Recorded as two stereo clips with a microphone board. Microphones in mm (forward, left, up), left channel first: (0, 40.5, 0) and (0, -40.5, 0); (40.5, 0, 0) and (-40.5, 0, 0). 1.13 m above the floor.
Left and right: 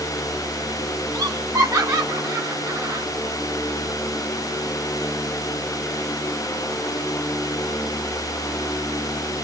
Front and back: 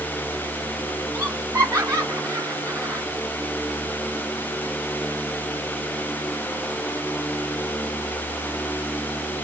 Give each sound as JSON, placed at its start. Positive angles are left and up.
{"t": 1.1, "sound": "laughter", "azimuth_deg": -125, "distance_m": 3.5}